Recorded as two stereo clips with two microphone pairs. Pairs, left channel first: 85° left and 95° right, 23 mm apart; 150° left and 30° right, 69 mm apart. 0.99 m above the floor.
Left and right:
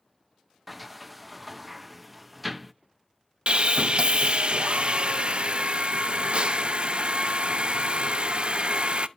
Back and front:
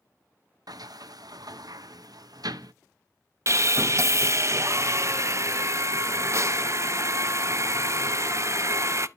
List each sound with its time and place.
0.7 s a sliding door: 10° right, 0.5 m
3.5 s sawing: 70° right, 0.5 m